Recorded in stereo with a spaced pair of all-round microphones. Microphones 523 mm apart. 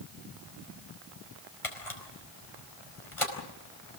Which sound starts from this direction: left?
A camera shutter, at 1.6 s.